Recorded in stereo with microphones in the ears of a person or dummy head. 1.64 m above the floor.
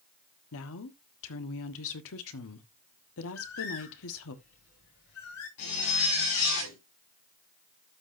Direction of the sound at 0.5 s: 80° left.